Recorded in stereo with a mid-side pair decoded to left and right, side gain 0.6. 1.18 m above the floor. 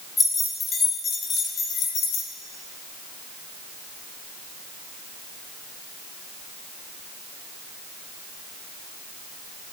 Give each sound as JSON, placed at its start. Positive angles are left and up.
{"t": 0.2, "sound": "keys jangling", "azimuth_deg": 25, "distance_m": 1.6}